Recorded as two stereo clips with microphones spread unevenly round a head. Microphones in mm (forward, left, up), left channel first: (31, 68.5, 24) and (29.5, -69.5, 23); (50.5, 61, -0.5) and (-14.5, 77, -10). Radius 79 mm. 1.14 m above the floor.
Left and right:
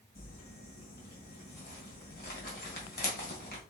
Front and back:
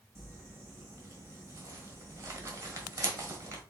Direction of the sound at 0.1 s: 120° left.